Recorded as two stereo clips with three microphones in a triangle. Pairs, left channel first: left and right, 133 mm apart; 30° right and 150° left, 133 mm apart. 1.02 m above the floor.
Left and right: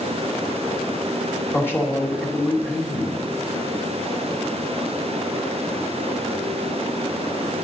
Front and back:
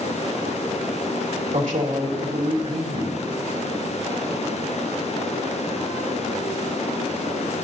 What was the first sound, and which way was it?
A man speaking, 160° left.